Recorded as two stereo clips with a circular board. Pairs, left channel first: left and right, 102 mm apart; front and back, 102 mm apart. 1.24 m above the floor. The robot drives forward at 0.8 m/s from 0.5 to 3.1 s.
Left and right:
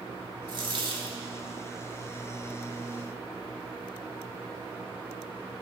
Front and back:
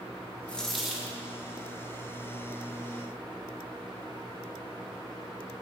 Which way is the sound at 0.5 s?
75° right.